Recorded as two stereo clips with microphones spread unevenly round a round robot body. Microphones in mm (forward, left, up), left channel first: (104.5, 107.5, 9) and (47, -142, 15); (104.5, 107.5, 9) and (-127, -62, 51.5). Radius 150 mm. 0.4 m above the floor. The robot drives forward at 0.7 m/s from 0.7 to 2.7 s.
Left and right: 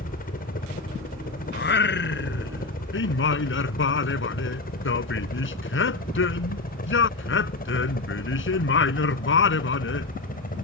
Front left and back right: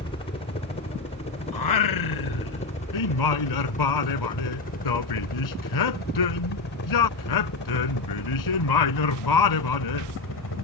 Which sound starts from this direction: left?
A helicopter, at 0.0 s.